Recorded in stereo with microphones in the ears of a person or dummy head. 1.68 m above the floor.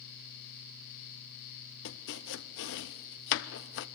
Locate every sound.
1.9 s chopping: 70° left (ahead or behind), 0.7 m